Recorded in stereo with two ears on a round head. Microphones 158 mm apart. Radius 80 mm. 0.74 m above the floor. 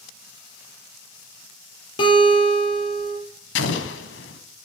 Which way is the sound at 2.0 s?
30° left (ahead or behind).